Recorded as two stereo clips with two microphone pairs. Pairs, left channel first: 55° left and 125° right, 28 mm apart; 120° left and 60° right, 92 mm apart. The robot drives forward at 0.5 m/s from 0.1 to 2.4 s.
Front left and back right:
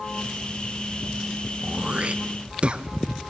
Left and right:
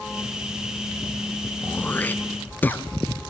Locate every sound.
1.6 s throat clearing: 165° right, 0.6 m; by 2.8 s 170° right, 1.0 m